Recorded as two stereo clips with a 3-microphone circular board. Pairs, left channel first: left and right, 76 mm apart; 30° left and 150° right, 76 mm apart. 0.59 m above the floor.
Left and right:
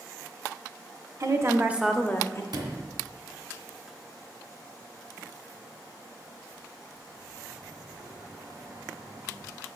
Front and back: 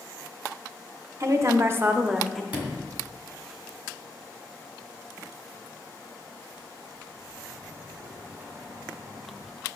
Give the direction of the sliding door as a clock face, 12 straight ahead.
3 o'clock.